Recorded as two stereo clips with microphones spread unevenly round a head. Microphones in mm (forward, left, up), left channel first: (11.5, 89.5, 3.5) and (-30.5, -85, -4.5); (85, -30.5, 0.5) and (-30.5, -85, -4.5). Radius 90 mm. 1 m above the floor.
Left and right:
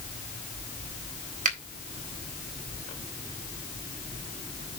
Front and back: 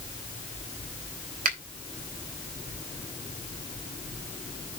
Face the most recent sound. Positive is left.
turn(degrees=-155)